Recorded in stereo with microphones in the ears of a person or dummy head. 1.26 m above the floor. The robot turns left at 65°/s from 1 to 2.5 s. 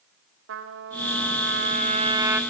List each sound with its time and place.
0.5 s a trumpet: 80° right, 1.8 m; by 2.4 s 170° right, 1.8 m